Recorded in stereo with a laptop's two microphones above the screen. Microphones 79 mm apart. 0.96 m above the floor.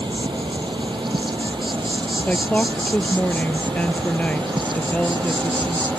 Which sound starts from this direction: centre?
A woman speaking, at 2.3 s.